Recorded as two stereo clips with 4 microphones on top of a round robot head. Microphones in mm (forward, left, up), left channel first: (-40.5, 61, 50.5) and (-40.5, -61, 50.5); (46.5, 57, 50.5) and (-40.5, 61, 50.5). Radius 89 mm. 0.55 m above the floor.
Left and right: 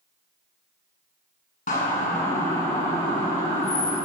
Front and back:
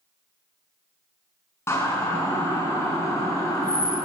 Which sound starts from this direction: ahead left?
A siren, at 1.7 s.